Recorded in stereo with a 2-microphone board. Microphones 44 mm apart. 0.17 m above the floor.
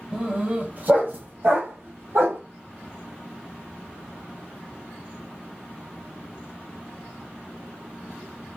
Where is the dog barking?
20° right (ahead or behind), 1.1 m; by 2.4 s 70° right (ahead or behind), 1.7 m.